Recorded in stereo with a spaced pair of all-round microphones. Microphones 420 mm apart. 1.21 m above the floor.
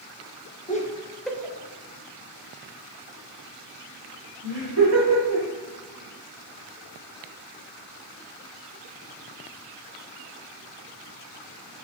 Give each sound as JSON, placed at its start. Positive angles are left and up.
{"t": 0.7, "sound": "laughter", "side_deg": 20, "distance_m": 0.9}